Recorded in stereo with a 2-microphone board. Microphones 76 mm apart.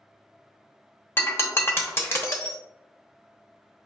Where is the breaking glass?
35° left (ahead or behind), 0.7 m.